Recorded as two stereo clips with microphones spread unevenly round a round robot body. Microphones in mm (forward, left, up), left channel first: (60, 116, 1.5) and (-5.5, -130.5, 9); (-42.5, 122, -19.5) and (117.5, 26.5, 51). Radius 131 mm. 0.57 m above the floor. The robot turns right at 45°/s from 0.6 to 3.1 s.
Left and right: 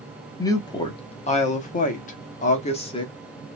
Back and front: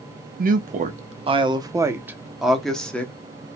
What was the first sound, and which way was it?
A woman speaking, 15° left.